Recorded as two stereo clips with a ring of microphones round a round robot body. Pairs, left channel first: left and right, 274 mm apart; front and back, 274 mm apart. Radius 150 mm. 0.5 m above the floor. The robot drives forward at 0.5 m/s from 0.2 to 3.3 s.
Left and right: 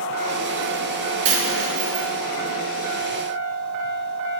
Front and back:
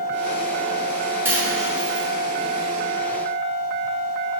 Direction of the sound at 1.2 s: 95° right.